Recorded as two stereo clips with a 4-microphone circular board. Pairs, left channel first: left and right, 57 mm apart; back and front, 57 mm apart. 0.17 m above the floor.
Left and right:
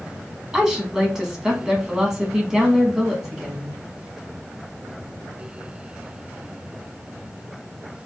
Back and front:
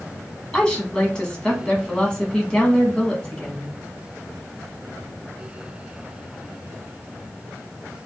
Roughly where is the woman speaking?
Behind right.